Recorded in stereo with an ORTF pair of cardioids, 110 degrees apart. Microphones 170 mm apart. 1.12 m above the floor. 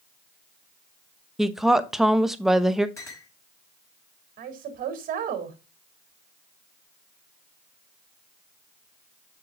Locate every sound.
1.4 s a woman speaking: straight ahead, 1.0 m
3.0 s a clink: 15° left, 4.5 m
4.4 s a woman speaking: 60° right, 3 m